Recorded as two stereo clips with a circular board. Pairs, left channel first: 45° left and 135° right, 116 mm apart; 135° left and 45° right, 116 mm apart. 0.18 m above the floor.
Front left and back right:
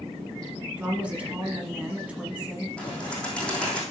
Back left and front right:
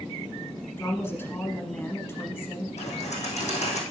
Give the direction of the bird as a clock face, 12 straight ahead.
8 o'clock.